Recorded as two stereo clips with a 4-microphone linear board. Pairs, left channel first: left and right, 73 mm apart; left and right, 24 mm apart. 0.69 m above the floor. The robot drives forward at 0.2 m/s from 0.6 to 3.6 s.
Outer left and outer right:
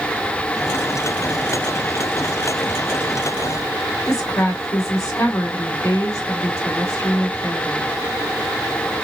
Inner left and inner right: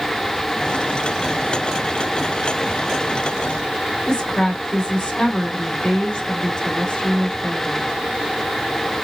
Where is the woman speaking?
50° left (ahead or behind), 1.9 m.